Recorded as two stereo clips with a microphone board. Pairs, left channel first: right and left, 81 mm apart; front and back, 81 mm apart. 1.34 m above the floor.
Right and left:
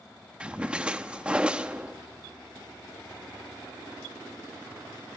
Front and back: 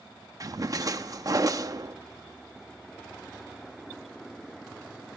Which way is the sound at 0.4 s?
165° left.